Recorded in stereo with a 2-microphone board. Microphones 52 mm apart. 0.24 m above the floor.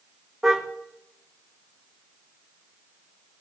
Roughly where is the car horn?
Centre.